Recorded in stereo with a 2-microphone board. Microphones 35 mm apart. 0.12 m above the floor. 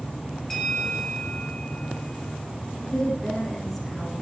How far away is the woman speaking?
About 5 m.